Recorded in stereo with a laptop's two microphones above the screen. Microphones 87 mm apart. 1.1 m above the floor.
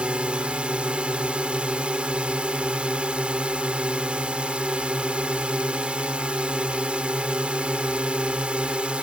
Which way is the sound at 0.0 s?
10° right (ahead or behind).